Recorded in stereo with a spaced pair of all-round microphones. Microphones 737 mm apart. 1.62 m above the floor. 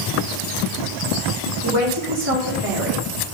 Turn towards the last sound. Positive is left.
turn(degrees=5)  # may be behind; listen again after turning